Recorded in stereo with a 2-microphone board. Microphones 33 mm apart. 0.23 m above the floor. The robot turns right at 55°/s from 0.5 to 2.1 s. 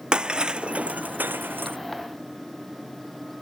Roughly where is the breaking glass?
Right.